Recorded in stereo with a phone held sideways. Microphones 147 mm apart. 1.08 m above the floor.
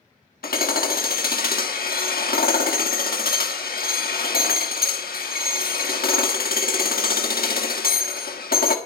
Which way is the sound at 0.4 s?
80° left.